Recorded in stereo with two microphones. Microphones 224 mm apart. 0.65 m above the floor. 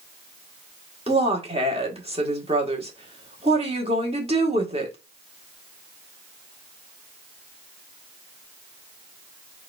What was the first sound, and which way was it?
A woman speaking, 25° right (ahead or behind).